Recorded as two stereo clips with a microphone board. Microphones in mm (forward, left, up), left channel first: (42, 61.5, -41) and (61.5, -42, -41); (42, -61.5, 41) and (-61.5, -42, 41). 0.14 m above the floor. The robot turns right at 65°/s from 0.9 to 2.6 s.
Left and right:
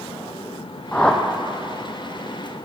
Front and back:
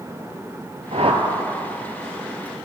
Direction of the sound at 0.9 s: 170° left.